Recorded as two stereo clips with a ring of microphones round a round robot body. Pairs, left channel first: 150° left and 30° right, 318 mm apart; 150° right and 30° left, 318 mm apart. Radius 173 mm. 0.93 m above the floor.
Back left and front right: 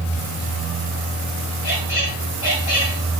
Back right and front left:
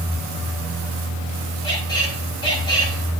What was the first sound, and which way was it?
A squeak, 135° left.